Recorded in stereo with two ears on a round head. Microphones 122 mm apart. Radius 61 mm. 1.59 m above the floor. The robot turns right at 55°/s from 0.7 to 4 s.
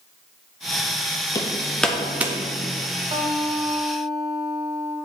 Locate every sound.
1.4 s hammering: 25° left (ahead or behind), 0.8 m; by 2.4 s 20° right (ahead or behind), 0.8 m
3.1 s a guitar: 130° right, 1.9 m; by 5.0 s 80° right, 1.9 m